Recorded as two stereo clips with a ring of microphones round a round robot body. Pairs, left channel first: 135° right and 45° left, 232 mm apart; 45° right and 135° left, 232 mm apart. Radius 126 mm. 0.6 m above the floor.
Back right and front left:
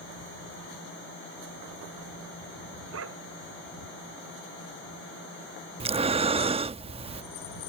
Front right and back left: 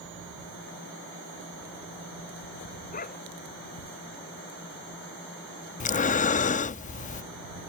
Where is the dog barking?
10° left.